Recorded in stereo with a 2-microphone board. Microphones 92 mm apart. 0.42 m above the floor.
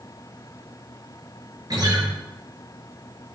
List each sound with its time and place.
1.7 s a guitar: 50° right (ahead or behind), 6.5 m